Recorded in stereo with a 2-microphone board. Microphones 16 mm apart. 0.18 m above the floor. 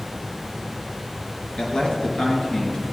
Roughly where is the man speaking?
Left.